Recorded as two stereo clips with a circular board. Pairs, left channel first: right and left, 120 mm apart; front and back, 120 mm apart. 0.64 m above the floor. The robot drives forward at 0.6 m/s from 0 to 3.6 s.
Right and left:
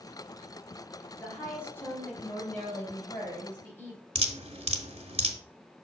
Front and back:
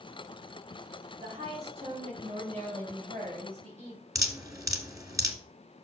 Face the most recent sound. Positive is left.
turn(degrees=120)